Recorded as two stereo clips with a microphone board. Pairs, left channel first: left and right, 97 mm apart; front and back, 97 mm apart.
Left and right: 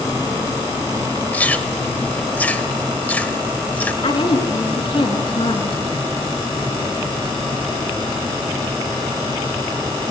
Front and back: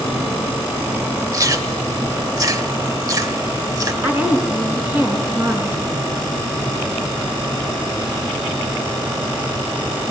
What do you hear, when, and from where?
1.3 s chewing: 155° left, 1.2 m
4.0 s a woman speaking: 110° left, 3.5 m